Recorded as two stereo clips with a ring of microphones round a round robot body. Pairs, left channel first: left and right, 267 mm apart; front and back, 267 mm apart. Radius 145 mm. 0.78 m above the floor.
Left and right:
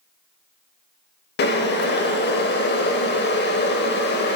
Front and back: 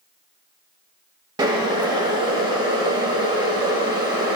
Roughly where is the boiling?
Left.